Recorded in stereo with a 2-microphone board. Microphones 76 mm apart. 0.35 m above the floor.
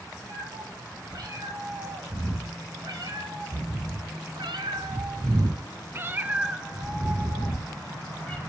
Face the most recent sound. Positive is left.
turn(degrees=15)  # may be behind; listen again after turning